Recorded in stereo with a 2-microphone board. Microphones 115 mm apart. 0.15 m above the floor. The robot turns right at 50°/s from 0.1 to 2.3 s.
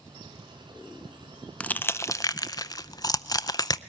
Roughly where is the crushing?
Centre.